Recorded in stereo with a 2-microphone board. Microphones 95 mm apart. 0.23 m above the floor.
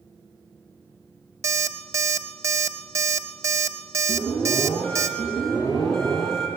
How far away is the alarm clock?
About 0.6 m.